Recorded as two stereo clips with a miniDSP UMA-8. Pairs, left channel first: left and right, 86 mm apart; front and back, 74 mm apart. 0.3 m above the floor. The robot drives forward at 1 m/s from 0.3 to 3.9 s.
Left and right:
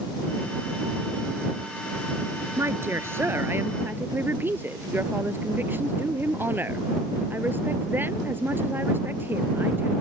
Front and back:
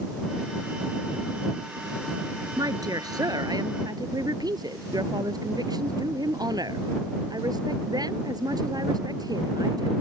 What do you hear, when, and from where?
2.6 s a woman speaking: 150° right; by 9.9 s 155° right